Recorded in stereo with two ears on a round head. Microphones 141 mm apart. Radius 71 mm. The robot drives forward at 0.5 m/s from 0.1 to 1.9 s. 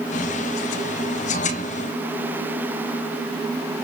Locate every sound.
Only background noise.